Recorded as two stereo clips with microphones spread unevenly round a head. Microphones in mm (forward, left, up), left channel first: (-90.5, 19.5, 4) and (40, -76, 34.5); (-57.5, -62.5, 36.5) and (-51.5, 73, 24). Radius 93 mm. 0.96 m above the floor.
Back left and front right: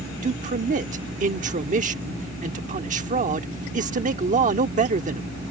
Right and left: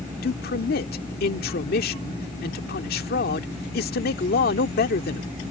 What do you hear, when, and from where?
0.2 s a man speaking: 80° right